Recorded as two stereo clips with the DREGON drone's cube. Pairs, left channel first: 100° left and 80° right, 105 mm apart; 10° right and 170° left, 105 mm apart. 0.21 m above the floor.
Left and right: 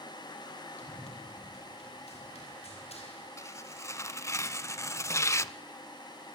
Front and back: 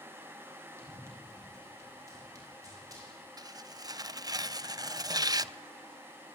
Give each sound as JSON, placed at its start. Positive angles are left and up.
{"t": 0.8, "sound": "running footsteps", "azimuth_deg": 105, "distance_m": 9.0}
{"t": 3.4, "sound": "tearing paper", "azimuth_deg": 140, "distance_m": 0.6}